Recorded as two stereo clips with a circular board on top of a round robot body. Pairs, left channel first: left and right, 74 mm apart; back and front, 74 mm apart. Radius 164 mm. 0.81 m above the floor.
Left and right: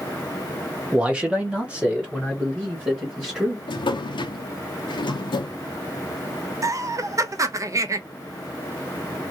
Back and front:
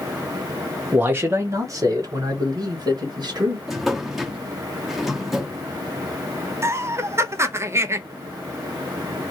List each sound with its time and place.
0.9 s a man speaking: 30° right, 0.9 m; by 3.6 s 10° right, 1.9 m
3.7 s a drawer: 90° left, 0.6 m
6.6 s laughter: 50° right, 0.7 m